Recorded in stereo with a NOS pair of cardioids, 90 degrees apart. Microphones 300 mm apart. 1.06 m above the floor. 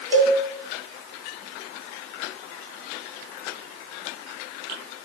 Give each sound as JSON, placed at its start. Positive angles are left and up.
{"t": 0.1, "sound": "a cowbell", "azimuth_deg": -10, "distance_m": 1.1}